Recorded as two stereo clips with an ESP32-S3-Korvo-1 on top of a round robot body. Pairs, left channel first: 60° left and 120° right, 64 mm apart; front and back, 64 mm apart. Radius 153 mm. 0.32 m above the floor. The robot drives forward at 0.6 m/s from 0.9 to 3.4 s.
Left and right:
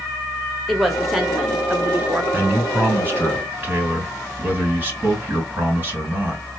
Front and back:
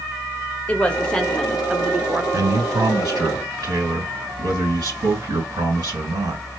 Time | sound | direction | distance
0.7 | a woman speaking | 30° right | 1.1 m
2.3 | a man speaking | straight behind | 3 m